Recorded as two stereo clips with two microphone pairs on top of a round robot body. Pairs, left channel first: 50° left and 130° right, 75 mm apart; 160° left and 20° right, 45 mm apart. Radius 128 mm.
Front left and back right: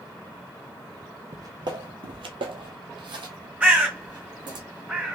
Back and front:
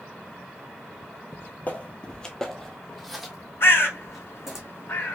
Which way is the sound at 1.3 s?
Straight behind.